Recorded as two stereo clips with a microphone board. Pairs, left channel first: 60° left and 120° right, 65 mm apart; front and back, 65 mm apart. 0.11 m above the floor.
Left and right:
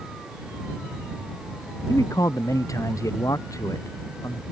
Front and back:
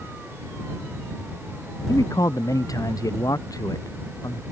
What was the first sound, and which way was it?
A man speaking, 25° left.